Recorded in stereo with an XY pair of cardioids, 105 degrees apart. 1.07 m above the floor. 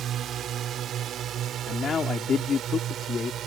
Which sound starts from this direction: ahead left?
A man speaking, at 1.7 s.